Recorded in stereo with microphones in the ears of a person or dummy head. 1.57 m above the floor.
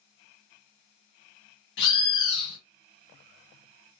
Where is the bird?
60° left (ahead or behind), 1.2 m.